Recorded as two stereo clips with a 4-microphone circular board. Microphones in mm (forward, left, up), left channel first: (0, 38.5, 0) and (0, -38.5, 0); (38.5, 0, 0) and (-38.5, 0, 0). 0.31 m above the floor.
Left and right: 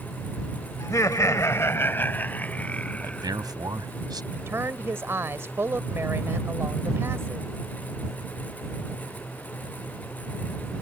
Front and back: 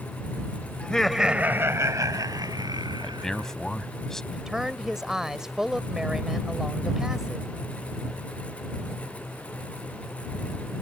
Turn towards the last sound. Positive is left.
turn(degrees=-100)